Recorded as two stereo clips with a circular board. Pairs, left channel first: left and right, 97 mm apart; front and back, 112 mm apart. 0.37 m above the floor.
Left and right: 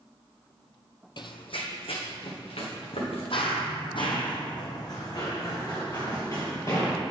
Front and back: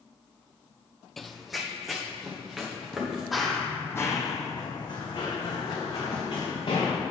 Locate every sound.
1.2 s running footsteps: 90° left, 0.6 m; by 3.2 s 95° left, 3 m
3.3 s running footsteps: 95° left, 1.0 m; by 6.9 s 30° left, 3.5 m